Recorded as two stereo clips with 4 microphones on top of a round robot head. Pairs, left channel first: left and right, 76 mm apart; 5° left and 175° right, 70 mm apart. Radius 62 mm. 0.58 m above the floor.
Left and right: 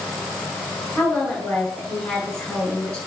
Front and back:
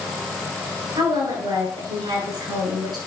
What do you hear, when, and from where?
0.9 s a woman speaking: 170° left, 6 m